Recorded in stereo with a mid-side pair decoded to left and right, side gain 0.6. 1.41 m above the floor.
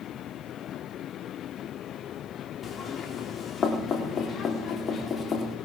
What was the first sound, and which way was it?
Knocking, 35° left.